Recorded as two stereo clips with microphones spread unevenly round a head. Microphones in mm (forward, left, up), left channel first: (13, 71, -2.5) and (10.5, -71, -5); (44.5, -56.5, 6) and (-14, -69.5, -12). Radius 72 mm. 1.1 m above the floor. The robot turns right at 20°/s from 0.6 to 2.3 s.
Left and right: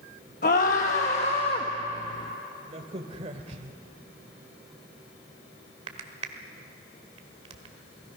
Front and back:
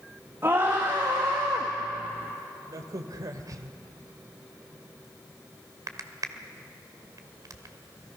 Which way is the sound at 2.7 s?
140° right.